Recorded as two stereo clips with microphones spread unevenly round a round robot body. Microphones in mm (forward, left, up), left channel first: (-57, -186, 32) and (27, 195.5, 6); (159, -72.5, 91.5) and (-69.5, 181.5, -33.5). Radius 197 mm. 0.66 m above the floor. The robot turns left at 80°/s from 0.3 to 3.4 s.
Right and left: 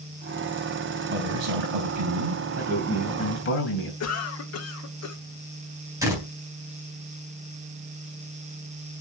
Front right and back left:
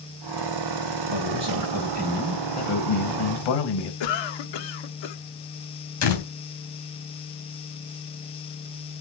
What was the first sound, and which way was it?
A man speaking, 140° left.